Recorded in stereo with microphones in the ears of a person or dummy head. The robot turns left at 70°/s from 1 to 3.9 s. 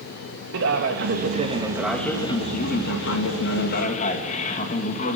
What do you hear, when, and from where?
0.5 s a man speaking: 115° right, 2.5 m; by 5.2 s 40° left, 2.5 m